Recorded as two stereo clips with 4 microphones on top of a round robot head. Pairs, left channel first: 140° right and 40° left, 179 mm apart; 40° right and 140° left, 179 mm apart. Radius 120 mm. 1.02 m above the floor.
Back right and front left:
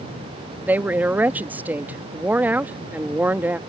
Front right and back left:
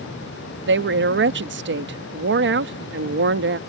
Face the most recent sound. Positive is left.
turn(degrees=120)